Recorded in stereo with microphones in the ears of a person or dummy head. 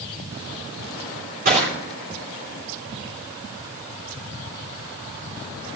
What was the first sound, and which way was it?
Crushing, 45° right (ahead or behind).